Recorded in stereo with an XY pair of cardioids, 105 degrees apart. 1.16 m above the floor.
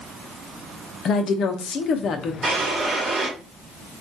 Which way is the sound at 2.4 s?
50° right.